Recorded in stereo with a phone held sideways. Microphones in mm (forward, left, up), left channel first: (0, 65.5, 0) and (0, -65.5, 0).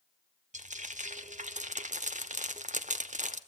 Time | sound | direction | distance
0.5 | frying | 80° right | 1.2 m